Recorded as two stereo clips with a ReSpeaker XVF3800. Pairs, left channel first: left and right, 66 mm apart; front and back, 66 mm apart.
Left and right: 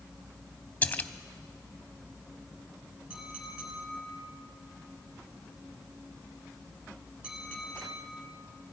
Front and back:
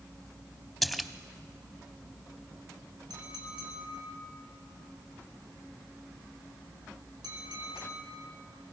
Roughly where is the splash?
Left.